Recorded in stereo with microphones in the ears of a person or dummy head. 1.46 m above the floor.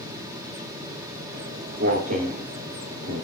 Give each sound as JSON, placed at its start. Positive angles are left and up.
{"t": 1.3, "sound": "footsteps", "side_deg": -35, "distance_m": 3.5}